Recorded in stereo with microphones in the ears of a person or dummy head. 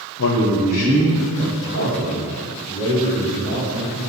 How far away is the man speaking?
About 0.8 m.